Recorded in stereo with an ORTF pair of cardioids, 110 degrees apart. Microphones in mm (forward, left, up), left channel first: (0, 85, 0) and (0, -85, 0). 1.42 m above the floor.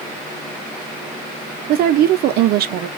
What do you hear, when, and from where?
1.7 s a woman speaking: 65° right, 0.6 m